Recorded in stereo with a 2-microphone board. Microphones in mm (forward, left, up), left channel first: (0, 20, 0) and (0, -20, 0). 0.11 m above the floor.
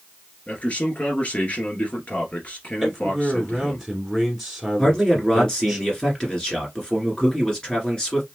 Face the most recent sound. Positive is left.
turn(degrees=15)  # may be behind; listen again after turning